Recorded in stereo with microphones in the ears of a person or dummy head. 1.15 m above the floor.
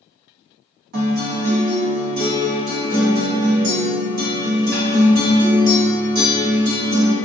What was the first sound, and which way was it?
A guitar, 50° right (ahead or behind).